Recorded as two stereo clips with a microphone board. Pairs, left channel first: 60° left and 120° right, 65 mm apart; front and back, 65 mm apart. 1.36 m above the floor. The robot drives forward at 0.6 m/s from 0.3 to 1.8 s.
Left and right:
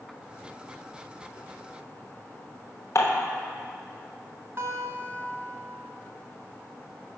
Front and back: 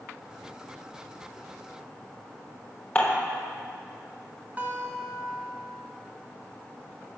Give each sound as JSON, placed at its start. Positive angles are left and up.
{"t": 3.0, "sound": "dishes clattering", "azimuth_deg": 60, "distance_m": 0.9}
{"t": 4.6, "sound": "a guitar", "azimuth_deg": -135, "distance_m": 0.8}